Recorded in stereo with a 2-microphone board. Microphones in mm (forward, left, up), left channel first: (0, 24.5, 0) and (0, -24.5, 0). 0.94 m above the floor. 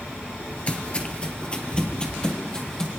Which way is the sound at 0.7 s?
30° left (ahead or behind).